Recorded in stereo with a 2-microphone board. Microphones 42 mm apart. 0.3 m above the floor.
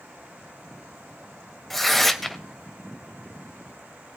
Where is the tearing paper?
Centre (ahead or behind), 0.7 m.